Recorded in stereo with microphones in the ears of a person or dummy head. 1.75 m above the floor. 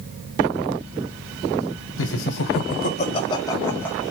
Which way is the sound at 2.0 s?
75° left (ahead or behind).